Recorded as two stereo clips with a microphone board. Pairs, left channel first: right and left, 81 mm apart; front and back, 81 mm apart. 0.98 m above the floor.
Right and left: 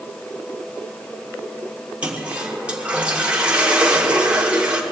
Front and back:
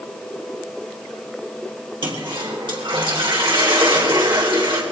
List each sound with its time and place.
2.0 s a toilet flushing: 165° left, 2.5 m